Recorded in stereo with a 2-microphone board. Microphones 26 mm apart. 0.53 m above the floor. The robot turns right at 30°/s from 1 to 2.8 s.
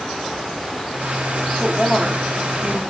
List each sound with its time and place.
1.6 s a woman speaking: 5° right (ahead or behind), 1.0 m; by 2.8 s 15° right (ahead or behind), 1.0 m